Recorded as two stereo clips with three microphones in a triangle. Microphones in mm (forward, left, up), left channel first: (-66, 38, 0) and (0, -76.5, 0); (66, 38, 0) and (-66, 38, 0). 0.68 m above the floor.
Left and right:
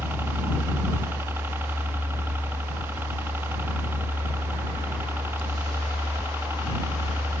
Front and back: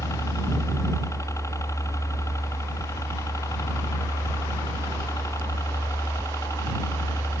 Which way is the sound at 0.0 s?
15° right.